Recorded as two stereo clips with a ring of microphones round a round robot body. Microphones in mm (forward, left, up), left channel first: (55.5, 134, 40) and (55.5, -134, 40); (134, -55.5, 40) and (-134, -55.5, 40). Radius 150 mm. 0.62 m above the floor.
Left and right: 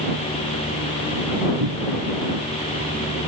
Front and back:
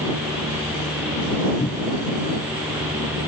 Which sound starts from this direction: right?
A cupboard door, at 1.6 s.